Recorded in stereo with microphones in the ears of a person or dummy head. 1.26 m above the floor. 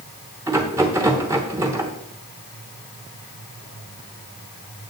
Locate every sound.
0.5 s a rattle: 15° right (ahead or behind), 1.0 m